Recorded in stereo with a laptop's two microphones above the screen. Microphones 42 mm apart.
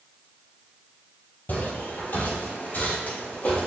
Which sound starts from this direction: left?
Footsteps, at 1.5 s.